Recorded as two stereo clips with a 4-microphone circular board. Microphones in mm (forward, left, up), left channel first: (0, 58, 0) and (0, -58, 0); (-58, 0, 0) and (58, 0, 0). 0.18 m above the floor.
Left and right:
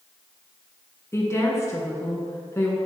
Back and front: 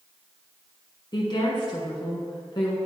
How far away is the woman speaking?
About 1.5 m.